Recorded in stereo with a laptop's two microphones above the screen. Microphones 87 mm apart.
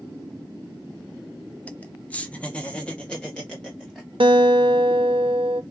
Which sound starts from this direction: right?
A guitar, at 4.2 s.